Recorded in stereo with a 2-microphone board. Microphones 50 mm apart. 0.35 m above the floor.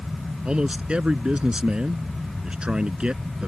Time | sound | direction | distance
0.5 | a man speaking | 20° right (ahead or behind) | ?